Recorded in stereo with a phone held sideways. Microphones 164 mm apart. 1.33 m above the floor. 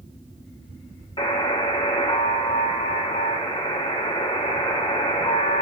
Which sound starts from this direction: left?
A buzzer, at 1.2 s.